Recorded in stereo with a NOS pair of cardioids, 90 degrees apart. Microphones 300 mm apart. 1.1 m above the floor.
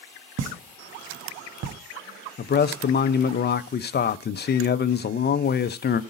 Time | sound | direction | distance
0.4 | a pop | 60° right | 1.0 m
2.4 | a man speaking | 35° left | 0.6 m